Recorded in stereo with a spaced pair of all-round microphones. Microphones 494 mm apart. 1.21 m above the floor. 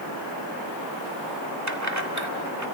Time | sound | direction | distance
1.7 | keys jangling | 35° right (ahead or behind) | 2 m